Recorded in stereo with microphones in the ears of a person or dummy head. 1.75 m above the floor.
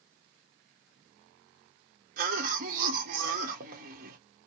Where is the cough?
55° right (ahead or behind), 1.0 m.